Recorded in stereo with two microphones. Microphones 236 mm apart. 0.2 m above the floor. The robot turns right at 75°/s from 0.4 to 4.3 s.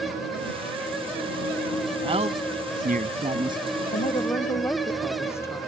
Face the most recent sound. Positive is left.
turn(degrees=10)  # may be behind; listen again after turning